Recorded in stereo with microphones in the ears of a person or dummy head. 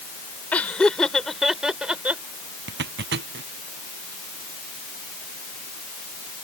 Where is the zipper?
60° right (ahead or behind).